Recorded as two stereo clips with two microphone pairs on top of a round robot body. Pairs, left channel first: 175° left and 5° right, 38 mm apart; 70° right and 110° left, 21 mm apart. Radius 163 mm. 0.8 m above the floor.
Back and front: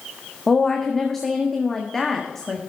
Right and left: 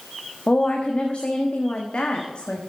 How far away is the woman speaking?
About 1.5 m.